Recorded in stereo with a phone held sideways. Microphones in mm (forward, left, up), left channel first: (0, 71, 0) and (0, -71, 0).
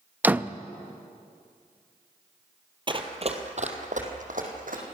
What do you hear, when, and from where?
0.2 s a door slam: 10° right (ahead or behind), 0.6 m
2.9 s running footsteps: 35° right (ahead or behind), 2.0 m; by 4.8 s 70° right (ahead or behind), 4.5 m